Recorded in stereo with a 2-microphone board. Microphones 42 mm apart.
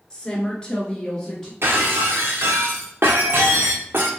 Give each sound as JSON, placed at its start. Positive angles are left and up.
{"t": 0.1, "sound": "a woman speaking", "side_deg": 25, "distance_m": 1.2}
{"t": 1.6, "sound": "breaking glass", "side_deg": -70, "distance_m": 0.8}